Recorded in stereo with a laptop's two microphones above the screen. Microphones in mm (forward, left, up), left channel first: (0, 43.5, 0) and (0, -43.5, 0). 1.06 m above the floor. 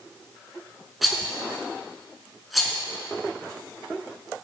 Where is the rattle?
Centre (ahead or behind), 4.5 m.